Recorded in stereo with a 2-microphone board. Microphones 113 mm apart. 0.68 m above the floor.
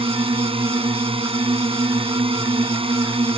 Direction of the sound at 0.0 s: 55° right (ahead or behind).